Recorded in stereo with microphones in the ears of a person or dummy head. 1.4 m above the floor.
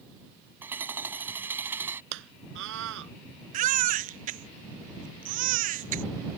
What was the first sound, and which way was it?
Hammering, 10° right (ahead or behind).